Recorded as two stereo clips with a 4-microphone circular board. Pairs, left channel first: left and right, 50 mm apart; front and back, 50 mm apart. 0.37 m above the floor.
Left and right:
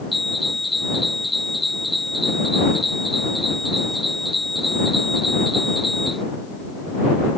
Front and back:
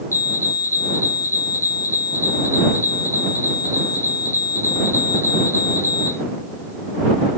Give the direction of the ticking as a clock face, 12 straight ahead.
No ticking in this recording.